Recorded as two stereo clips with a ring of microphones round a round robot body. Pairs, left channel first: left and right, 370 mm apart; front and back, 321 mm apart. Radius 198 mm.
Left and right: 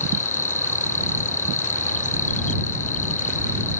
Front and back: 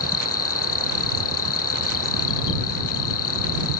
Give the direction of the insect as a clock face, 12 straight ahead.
11 o'clock.